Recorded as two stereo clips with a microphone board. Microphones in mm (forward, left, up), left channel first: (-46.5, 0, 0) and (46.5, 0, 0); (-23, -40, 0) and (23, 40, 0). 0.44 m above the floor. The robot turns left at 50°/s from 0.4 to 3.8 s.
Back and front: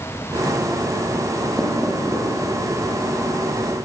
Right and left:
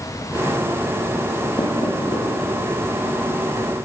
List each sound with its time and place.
1.6 s knocking: 90° right, 8 m; by 2.2 s 125° right, 8 m